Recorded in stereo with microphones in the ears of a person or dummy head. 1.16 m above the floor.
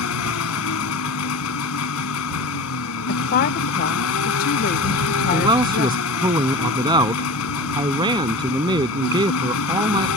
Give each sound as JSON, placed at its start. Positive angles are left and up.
{"t": 0.0, "sound": "an engine running", "side_deg": 85}
{"t": 3.1, "sound": "a woman speaking", "side_deg": 50}
{"t": 5.3, "sound": "a man speaking", "side_deg": -20}